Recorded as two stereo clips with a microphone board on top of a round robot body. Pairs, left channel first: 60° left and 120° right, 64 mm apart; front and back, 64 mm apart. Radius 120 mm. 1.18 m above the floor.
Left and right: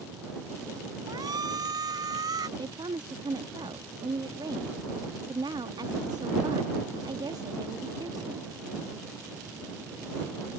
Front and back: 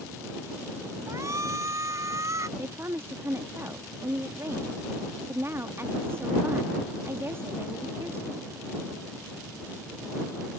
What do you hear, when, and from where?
1.1 s a shout: 135° right; by 2.5 s 140° right
2.6 s a woman speaking: 125° right